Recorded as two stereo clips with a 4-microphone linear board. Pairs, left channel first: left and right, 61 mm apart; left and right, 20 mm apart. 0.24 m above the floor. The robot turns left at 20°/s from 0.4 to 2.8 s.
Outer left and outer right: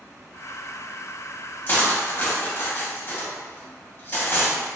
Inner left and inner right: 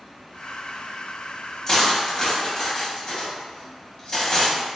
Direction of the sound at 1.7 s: 35° left (ahead or behind).